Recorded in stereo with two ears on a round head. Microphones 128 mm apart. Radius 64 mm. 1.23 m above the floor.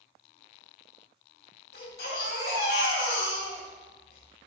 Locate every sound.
1.7 s a baby crying: 85° left, 5 m